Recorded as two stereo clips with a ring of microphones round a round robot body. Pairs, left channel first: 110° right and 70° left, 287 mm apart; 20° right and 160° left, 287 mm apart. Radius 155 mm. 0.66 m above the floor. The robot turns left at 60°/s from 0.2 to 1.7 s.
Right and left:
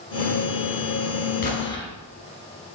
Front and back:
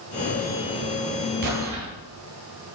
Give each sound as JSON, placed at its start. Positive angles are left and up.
{"t": 1.4, "sound": "an explosion", "azimuth_deg": -170, "distance_m": 2.5}